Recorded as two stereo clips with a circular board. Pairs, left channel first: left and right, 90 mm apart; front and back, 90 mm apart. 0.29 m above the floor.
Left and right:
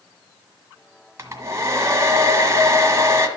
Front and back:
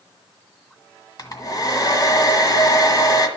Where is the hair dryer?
35° right, 1.6 m.